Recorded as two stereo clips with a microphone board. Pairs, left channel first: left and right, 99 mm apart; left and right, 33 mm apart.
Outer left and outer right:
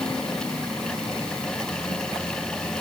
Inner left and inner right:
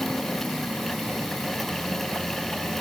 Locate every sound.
Only background noise.